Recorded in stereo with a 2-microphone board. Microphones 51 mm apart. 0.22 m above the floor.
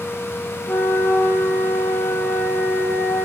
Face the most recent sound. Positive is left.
turn(degrees=50)  # may be behind; listen again after turning